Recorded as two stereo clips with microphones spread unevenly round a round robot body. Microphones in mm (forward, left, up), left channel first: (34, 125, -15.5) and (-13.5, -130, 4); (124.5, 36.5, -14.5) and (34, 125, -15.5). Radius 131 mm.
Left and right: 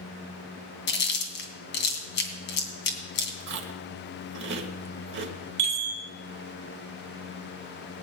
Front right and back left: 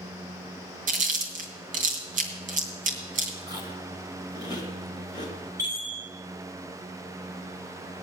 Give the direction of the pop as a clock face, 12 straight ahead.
I don't hear a pop.